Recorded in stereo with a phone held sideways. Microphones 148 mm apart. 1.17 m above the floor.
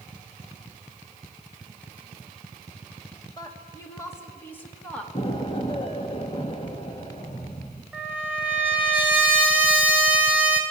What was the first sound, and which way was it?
A woman speaking, 25° left (ahead or behind).